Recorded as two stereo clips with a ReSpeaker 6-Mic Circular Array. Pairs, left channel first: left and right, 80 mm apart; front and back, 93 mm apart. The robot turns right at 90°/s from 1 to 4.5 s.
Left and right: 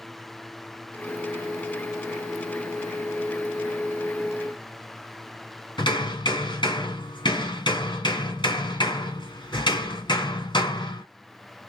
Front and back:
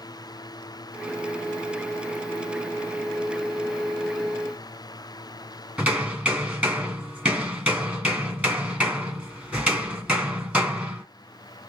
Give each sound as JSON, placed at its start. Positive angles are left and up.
{"t": 5.8, "sound": "hammering", "azimuth_deg": 110, "distance_m": 2.0}